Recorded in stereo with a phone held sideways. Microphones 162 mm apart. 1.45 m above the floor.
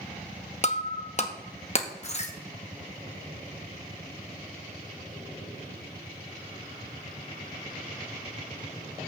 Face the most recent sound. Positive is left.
turn(degrees=45)  # may be behind; listen again after turning